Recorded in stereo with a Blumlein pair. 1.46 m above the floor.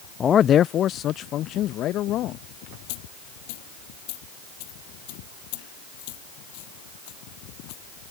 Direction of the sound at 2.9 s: 45° left.